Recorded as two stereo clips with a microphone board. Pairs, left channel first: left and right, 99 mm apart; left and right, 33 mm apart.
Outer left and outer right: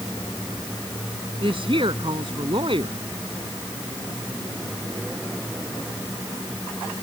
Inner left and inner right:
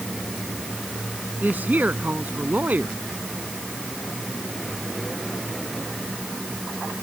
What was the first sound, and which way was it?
A woman speaking, 65° right (ahead or behind).